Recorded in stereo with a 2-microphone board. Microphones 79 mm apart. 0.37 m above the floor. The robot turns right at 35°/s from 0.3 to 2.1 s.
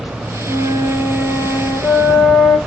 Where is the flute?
35° right, 0.8 m; by 2.6 s 20° left, 0.8 m.